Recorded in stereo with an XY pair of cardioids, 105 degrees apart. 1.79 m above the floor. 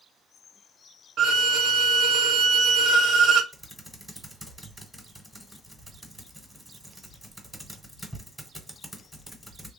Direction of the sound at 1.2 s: 65° right.